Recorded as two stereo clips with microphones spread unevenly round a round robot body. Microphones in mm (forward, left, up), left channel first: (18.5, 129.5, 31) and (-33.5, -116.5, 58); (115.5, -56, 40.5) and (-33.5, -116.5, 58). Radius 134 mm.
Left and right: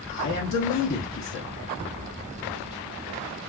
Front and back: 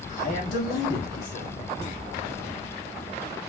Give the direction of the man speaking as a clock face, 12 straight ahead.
10 o'clock.